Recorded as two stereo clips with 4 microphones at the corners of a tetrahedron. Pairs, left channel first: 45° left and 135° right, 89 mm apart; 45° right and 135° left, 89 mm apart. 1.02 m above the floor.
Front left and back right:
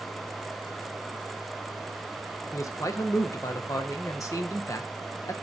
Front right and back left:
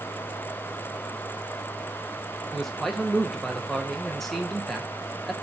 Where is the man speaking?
40° left, 0.5 m.